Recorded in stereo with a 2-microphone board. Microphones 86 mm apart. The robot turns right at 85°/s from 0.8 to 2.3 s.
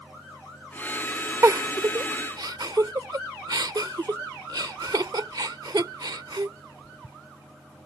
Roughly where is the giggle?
Right.